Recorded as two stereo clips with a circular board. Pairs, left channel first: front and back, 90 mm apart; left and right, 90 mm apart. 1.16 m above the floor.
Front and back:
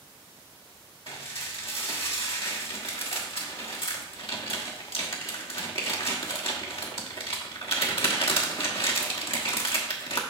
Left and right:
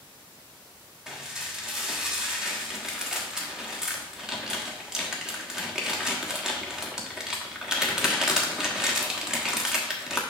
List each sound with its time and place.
1.1 s dishes clattering: 5° right, 1.2 m